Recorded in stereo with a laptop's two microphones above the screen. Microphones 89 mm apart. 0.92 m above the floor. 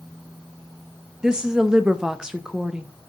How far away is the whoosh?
No whoosh in this recording.